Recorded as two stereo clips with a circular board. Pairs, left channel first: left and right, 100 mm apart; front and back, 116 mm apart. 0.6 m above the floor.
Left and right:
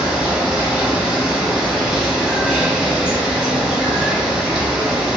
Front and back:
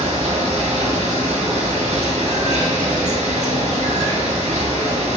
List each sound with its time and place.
0.0 s running water: 170° right, 1.2 m